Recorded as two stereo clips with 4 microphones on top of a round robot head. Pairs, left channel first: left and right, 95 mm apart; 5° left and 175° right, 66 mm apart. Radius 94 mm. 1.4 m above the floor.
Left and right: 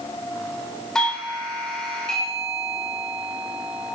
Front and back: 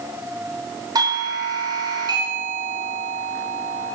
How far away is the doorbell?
About 2.5 m.